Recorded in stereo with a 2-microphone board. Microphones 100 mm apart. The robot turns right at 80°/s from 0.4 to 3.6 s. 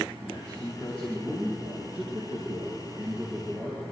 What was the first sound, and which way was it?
A man speaking, 120° left.